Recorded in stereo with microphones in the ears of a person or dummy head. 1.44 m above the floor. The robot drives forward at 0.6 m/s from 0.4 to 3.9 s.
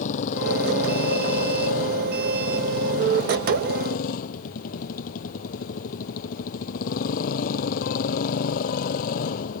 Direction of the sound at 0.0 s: 45° left (ahead or behind).